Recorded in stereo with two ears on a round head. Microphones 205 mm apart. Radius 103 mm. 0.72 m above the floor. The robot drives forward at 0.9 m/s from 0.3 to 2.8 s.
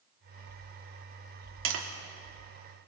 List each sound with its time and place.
1.6 s tapping: 60° right (ahead or behind), 2 m